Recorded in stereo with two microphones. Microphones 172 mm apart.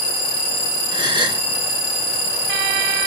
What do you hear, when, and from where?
0.9 s a gasp: 25° right (ahead or behind), 2 m